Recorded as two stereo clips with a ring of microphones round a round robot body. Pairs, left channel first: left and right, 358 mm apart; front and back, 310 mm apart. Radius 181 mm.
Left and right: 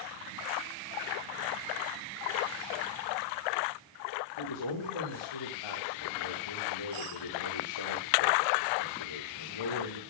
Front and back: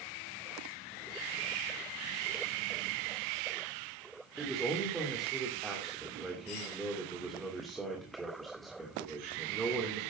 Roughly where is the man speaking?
Left.